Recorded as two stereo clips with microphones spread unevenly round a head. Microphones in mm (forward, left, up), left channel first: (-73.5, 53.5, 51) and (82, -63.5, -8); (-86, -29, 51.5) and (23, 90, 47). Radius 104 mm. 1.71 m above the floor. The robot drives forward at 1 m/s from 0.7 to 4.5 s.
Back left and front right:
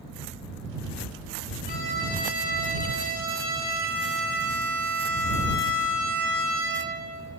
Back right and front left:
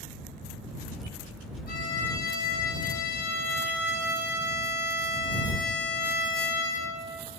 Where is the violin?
160° right, 8.5 m; by 7.1 s 165° right, 11 m.